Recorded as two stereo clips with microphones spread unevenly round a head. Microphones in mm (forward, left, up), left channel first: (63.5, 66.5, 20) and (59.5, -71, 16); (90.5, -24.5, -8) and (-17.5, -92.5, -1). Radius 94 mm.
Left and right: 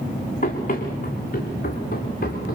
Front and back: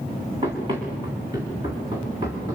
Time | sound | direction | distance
0.4 | running footsteps | 145° left | 6 m